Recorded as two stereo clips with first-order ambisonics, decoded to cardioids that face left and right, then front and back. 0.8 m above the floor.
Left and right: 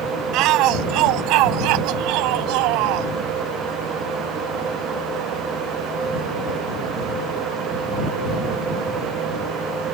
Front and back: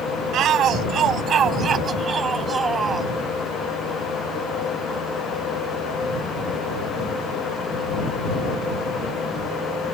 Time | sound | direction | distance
0.3 | a shout | 125° right | ?